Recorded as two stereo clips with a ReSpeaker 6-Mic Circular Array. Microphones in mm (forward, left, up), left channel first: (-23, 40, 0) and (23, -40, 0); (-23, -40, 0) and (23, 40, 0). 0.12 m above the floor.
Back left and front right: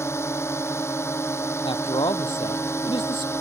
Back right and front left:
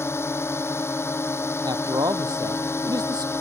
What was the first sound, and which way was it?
A drone, straight behind.